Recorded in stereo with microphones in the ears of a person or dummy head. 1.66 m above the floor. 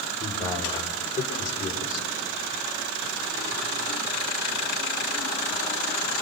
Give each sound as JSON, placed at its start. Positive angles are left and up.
{"t": 0.2, "sound": "a man speaking", "side_deg": 30, "distance_m": 6.5}